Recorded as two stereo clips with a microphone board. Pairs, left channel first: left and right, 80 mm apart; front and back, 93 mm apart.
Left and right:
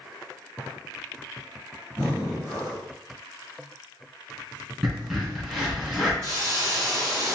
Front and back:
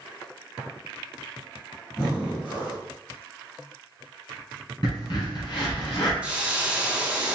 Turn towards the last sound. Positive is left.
turn(degrees=-105)